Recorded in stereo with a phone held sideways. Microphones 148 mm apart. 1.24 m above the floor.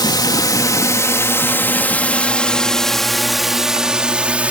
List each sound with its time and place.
0.0 s a drone: 30° left (ahead or behind); by 4.5 s 10° right (ahead or behind)